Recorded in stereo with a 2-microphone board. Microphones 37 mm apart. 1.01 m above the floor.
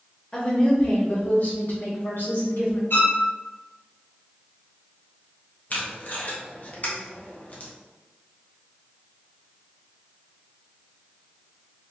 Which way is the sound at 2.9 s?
70° left (ahead or behind).